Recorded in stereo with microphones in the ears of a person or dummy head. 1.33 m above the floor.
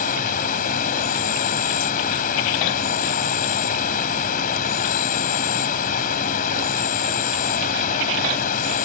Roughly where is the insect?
Left.